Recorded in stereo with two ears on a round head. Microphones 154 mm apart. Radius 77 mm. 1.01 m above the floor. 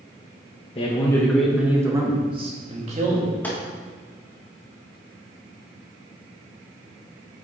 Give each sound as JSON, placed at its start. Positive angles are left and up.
{"t": 0.8, "sound": "a man speaking", "side_deg": 35, "distance_m": 1.2}
{"t": 3.4, "sound": "a gunshot", "side_deg": 10, "distance_m": 1.4}